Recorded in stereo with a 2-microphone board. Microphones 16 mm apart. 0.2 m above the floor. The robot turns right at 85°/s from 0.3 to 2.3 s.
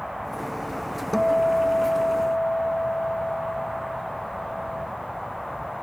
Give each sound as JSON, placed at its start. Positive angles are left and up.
{"t": 1.1, "sound": "a guitar", "azimuth_deg": 10}